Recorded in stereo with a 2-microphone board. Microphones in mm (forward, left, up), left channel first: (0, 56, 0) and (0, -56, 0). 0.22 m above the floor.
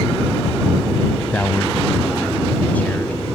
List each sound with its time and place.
1.2 s a man speaking: 15° left (ahead or behind)